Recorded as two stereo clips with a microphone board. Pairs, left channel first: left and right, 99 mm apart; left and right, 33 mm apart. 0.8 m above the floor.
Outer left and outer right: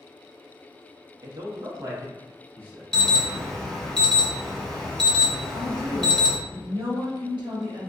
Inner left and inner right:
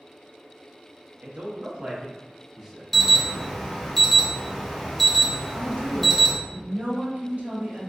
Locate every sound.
1.2 s a man speaking: 50° right (ahead or behind), 0.8 m; by 2.8 s 20° right (ahead or behind), 1.3 m
2.9 s an alarm: 5° left (ahead or behind), 0.7 m
5.5 s a woman speaking: 55° right (ahead or behind), 1.2 m